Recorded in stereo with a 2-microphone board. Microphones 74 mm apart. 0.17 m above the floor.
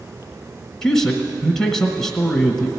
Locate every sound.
0.8 s a man speaking: 5° left (ahead or behind), 1.0 m